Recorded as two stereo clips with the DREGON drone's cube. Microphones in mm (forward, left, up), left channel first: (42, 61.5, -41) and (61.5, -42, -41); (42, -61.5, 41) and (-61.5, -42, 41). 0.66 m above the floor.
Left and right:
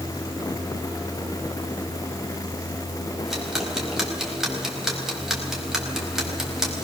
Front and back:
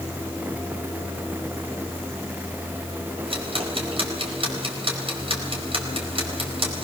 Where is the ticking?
165° right, 4.5 m.